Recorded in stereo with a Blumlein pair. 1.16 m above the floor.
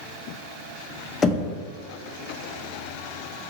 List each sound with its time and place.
1.2 s knocking: 20° left, 0.5 m